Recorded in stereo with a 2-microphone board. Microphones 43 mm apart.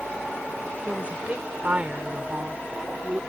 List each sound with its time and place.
0.9 s a woman speaking: 30° right (ahead or behind)